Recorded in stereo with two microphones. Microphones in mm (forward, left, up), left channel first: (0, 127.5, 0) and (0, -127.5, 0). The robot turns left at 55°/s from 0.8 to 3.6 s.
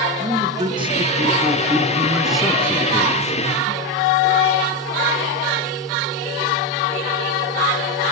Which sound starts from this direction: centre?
A man speaking, at 0.2 s.